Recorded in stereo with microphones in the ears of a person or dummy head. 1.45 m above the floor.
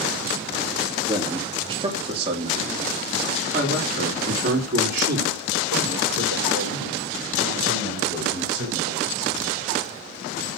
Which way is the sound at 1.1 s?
20° right (ahead or behind).